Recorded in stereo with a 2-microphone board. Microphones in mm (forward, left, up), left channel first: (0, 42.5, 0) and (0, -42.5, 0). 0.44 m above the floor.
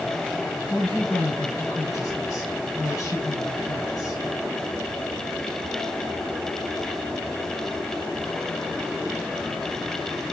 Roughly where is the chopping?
I don't hear chopping.